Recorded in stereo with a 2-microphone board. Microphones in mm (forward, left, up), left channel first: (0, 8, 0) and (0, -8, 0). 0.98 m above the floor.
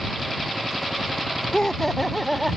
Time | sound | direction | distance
1.5 | laughter | 35° left (ahead or behind) | ?